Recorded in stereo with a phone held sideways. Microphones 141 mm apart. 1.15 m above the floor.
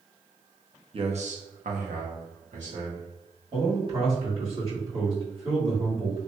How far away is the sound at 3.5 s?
About 1.9 m.